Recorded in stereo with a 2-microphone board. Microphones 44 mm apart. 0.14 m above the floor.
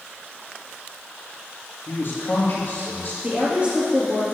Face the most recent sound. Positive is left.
turn(degrees=-30)  # may be behind; listen again after turning